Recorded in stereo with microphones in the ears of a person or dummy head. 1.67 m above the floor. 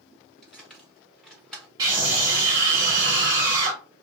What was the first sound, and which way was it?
Keys jangling, 5° left (ahead or behind).